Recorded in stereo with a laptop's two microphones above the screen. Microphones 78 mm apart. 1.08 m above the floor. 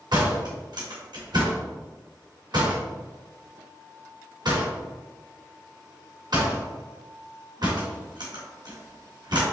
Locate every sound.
0.1 s a door slam: 70° right (ahead or behind), 1.5 m